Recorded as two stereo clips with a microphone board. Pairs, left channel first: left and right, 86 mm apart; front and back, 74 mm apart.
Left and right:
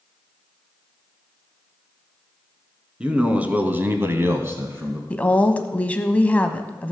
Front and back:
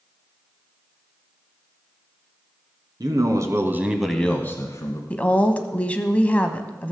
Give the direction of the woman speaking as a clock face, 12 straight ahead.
11 o'clock.